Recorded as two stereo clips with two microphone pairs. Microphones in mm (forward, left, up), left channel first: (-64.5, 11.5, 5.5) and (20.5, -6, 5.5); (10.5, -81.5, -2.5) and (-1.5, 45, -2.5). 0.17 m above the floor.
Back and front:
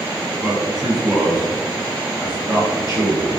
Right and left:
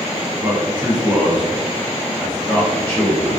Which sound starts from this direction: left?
A man speaking, at 0.4 s.